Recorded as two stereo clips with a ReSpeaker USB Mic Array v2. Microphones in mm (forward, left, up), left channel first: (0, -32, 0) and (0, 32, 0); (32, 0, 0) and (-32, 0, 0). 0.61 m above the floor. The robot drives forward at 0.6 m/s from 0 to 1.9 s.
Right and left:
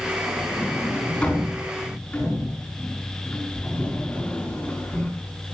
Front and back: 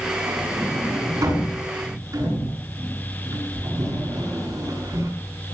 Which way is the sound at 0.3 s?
160° right.